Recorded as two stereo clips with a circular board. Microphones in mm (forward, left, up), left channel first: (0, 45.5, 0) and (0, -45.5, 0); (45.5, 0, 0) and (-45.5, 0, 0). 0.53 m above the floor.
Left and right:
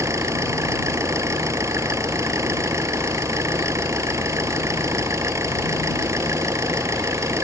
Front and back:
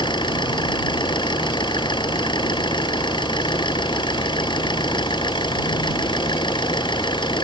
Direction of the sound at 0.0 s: 35° right.